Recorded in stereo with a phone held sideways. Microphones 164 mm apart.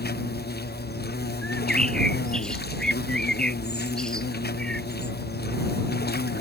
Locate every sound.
0.0 s an insect: 75° left (ahead or behind)
1.4 s a bird: 5° left (ahead or behind)